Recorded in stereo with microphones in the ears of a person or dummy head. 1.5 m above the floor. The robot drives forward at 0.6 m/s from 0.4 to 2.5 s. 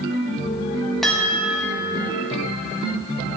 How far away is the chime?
About 1.4 m.